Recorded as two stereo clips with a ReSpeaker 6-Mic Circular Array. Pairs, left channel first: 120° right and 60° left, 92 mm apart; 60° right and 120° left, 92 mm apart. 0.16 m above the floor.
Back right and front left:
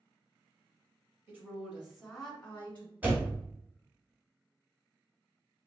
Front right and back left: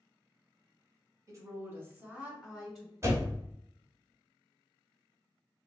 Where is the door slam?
115° left, 0.9 m.